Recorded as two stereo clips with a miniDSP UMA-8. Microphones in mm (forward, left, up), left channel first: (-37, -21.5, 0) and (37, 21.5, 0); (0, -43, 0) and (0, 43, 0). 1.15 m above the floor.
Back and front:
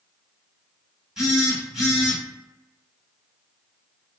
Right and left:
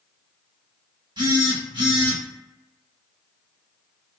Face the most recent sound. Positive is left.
turn(degrees=110)